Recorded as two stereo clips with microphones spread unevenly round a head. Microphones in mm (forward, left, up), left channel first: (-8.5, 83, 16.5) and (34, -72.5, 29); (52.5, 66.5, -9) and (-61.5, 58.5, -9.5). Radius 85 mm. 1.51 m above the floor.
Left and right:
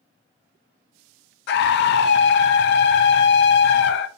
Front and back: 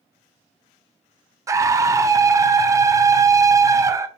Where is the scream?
120° left, 0.5 m.